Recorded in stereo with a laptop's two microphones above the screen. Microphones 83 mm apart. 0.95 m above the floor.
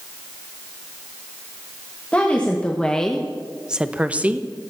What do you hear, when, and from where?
2.1 s a woman speaking: 15° left (ahead or behind), 1.2 m; by 4.4 s 20° right (ahead or behind), 1.0 m